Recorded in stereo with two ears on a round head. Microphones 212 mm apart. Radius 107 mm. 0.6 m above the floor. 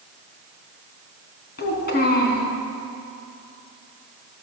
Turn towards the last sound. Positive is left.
turn(degrees=45)  # may be behind; listen again after turning